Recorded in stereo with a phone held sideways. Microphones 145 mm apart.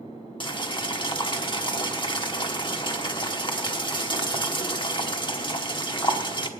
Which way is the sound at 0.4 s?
35° left (ahead or behind).